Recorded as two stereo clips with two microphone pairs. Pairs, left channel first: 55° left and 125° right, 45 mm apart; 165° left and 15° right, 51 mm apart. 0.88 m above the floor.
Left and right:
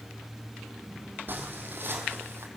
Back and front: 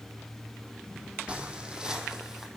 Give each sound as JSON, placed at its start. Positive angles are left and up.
{"t": 1.3, "sound": "footsteps", "azimuth_deg": -85, "distance_m": 2.5}